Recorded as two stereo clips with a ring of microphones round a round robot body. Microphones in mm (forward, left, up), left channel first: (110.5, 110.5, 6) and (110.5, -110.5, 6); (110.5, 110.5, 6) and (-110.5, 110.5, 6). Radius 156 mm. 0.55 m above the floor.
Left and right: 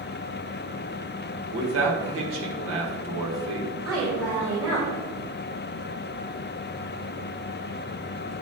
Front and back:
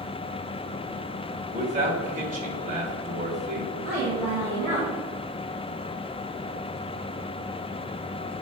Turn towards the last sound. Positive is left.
turn(degrees=-80)